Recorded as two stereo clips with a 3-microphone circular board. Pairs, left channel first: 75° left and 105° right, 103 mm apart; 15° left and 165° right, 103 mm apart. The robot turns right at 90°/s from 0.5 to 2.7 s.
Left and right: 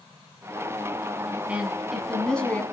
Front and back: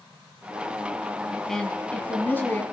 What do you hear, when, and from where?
1.5 s a woman speaking: 65° right, 1.2 m; by 2.6 s 40° left, 1.2 m